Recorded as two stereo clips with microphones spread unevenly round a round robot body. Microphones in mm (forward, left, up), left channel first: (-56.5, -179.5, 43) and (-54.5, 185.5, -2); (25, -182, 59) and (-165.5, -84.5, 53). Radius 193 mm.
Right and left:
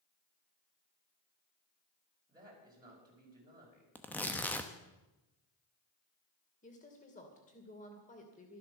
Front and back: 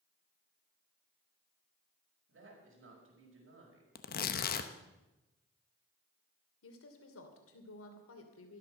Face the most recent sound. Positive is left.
turn(degrees=-20)